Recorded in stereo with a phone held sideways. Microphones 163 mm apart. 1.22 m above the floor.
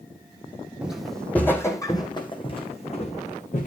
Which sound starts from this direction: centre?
Footsteps, at 0.8 s.